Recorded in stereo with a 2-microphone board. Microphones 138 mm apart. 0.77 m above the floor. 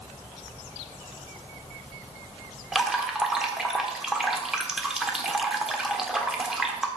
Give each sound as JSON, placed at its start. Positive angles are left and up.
{"t": 2.7, "sound": "dripping", "side_deg": -5, "distance_m": 1.2}